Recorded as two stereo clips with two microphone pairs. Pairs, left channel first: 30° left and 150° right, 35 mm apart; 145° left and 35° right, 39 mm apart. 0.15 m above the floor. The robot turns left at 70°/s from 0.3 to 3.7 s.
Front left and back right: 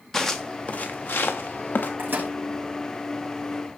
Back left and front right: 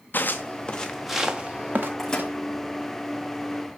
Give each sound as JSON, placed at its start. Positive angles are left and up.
{"t": 0.1, "sound": "footsteps", "azimuth_deg": 110, "distance_m": 1.8}
{"t": 2.0, "sound": "a microwave", "azimuth_deg": -135, "distance_m": 6.0}